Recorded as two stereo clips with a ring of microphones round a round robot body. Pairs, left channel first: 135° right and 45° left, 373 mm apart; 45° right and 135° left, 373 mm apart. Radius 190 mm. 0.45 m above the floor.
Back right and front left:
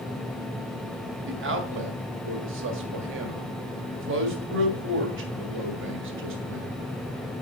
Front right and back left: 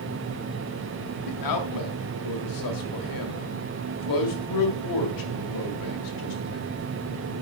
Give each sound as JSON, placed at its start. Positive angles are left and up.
{"t": 1.2, "sound": "a man speaking", "azimuth_deg": -15, "distance_m": 1.9}